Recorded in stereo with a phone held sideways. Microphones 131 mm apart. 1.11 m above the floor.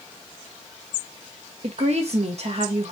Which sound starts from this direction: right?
A woman speaking, at 1.6 s.